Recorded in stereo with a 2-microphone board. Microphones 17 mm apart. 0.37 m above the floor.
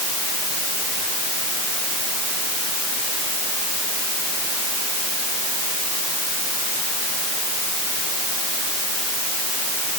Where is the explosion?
No explosion in this recording.